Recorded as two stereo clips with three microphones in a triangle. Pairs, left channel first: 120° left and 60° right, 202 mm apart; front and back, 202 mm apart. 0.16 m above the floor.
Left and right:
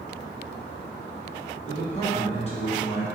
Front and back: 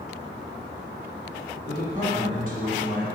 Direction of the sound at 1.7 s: 165° left.